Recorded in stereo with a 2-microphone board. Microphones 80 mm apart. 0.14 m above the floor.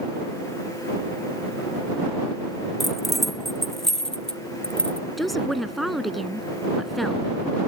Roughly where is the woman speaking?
Centre.